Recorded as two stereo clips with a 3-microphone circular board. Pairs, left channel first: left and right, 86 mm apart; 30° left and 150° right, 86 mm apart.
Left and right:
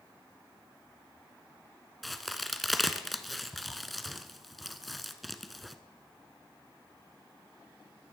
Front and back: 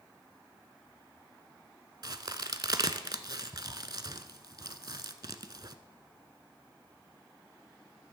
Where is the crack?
Straight behind, 0.5 m.